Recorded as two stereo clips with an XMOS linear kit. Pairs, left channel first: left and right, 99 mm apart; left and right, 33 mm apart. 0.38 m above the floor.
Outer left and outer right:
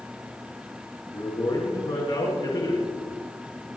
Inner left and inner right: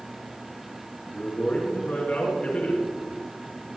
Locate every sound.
1.1 s a man speaking: 60° left (ahead or behind), 5 m